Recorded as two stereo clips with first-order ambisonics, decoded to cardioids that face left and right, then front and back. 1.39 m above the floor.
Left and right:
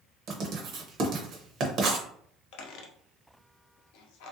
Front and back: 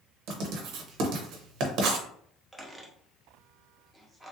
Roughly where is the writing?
Behind right.